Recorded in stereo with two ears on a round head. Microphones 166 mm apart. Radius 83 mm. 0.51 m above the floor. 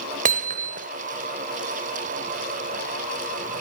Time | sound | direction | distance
0.2 | hammering | 45° right (ahead or behind) | 0.9 m